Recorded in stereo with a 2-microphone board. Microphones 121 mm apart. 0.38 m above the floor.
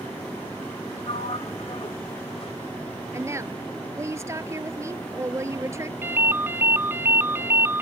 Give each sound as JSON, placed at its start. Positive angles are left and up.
{"t": 1.1, "sound": "a sliding door", "side_deg": 55}
{"t": 3.1, "sound": "a woman speaking", "side_deg": -25}
{"t": 6.0, "sound": "a ringtone", "side_deg": -20}